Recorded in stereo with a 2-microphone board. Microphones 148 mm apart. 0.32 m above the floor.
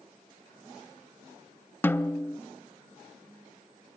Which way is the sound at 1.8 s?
15° left (ahead or behind).